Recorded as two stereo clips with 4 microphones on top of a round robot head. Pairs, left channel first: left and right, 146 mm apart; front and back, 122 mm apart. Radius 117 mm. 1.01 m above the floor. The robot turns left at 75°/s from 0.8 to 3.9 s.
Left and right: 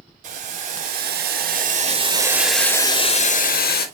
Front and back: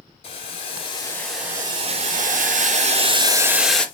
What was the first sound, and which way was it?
Boiling, 50° right.